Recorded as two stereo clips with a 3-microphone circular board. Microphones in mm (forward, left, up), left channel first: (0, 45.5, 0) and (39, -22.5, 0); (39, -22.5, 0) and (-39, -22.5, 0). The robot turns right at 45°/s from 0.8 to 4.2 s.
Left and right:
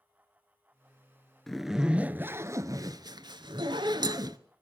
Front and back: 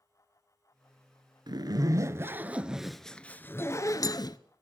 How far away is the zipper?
About 0.8 m.